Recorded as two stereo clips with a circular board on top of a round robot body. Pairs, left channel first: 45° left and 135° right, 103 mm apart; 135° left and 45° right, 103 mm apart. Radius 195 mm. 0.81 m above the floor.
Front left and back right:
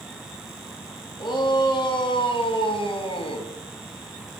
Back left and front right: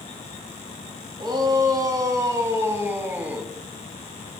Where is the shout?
5° left, 2.5 m; by 3.5 s 35° left, 1.8 m.